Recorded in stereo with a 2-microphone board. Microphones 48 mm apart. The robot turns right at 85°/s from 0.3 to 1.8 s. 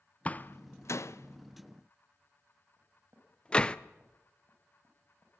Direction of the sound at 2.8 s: 55° right (ahead or behind).